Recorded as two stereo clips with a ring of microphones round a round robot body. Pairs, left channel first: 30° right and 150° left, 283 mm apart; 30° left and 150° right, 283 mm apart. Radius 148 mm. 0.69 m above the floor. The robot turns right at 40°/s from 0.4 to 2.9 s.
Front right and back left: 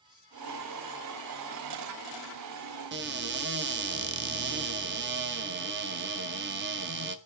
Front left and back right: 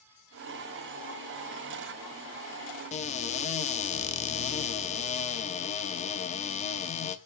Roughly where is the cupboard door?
Left.